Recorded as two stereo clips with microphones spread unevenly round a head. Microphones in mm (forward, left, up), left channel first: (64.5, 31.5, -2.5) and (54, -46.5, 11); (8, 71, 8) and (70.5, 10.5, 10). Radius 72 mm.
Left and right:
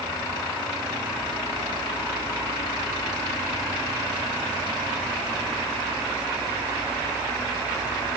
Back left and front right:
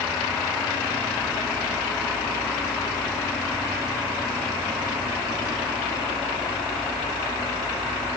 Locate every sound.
Only background noise.